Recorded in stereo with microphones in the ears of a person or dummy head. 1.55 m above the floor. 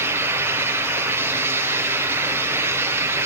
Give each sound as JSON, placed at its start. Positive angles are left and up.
{"t": 0.0, "sound": "a fan", "side_deg": -15, "distance_m": 1.1}